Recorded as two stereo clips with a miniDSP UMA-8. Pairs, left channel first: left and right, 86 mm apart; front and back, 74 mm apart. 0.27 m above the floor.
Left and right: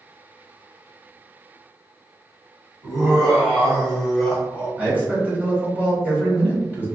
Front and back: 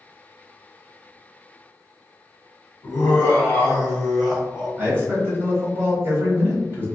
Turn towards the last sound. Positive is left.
turn(degrees=-150)